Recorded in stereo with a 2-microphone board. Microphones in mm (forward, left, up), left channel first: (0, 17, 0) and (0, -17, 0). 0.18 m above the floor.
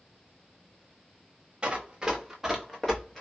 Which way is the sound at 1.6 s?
30° right (ahead or behind).